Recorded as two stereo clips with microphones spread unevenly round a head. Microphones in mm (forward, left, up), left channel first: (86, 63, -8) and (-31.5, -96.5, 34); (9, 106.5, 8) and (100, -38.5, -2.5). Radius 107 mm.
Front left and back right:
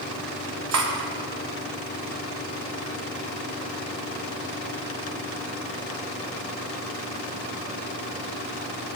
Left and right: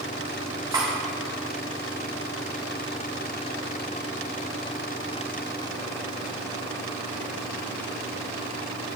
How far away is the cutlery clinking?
About 1.1 m.